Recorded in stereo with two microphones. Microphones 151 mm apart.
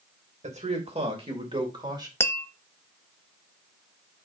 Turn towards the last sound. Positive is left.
turn(degrees=15)  # may be behind; listen again after turning